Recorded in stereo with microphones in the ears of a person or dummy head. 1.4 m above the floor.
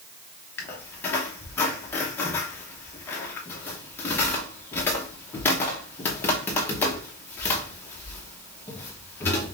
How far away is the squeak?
About 0.9 m.